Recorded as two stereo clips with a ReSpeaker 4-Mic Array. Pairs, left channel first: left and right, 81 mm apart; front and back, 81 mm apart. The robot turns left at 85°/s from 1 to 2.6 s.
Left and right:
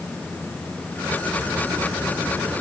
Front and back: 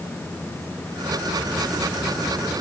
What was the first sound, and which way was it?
Only background noise.